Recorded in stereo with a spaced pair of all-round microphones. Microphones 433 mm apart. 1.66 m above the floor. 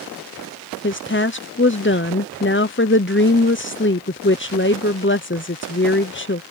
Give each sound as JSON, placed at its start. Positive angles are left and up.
{"t": 0.8, "sound": "a woman speaking", "side_deg": 30}